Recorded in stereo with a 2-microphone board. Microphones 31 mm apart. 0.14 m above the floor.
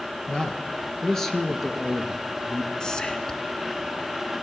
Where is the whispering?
25° left (ahead or behind), 1.4 m.